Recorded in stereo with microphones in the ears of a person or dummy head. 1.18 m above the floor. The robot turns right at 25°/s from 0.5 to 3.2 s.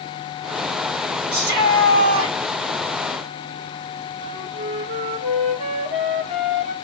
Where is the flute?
30° right (ahead or behind), 2 m.